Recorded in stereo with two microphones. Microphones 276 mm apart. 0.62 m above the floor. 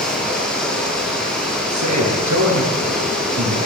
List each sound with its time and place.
0.0 s running water: 5° left (ahead or behind), 9.5 m
1.7 s a man speaking: 80° right, 9.5 m